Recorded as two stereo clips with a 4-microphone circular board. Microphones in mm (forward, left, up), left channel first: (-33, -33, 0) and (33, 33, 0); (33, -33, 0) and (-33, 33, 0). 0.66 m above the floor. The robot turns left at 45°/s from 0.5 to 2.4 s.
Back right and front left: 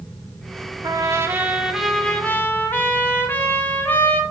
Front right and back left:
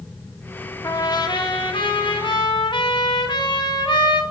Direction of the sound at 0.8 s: Straight ahead.